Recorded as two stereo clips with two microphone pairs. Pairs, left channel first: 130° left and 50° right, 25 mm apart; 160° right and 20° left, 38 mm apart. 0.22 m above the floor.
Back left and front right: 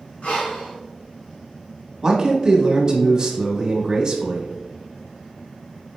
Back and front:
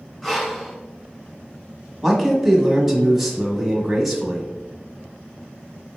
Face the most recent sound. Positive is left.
turn(degrees=-60)